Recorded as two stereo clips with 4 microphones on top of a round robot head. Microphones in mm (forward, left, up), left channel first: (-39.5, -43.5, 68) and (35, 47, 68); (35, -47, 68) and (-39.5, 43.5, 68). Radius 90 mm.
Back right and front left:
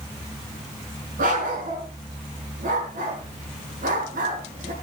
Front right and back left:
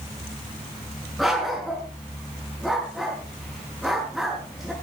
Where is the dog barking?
40° left, 5.5 m.